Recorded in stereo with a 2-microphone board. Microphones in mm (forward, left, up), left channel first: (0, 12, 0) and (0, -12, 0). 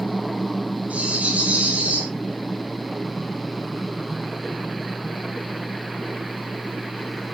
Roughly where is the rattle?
Right.